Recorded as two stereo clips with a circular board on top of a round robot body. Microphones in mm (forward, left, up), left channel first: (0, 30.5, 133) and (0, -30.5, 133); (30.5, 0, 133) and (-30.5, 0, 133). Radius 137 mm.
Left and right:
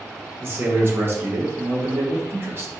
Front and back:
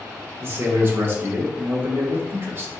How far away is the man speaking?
About 1.4 m.